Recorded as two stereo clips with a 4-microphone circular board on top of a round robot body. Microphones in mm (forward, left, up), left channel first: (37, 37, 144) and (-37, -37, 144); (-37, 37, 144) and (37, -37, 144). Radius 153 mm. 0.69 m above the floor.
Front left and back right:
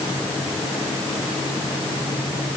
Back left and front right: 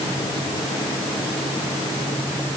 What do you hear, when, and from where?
Only background noise.